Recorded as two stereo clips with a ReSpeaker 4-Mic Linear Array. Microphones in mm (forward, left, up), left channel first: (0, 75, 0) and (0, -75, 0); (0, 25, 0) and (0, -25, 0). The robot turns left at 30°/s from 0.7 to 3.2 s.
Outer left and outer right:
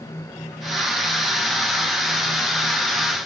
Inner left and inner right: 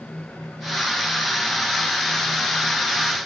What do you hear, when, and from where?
Only background noise.